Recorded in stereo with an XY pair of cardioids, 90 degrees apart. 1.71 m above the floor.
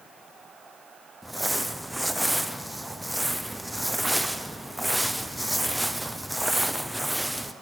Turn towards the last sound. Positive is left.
turn(degrees=-10)